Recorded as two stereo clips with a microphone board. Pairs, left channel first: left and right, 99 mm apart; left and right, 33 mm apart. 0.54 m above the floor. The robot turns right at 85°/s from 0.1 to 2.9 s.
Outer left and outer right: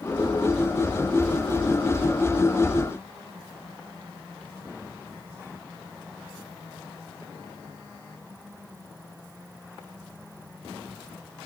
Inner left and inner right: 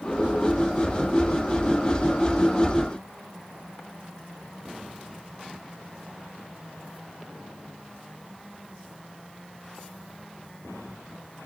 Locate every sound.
Only background noise.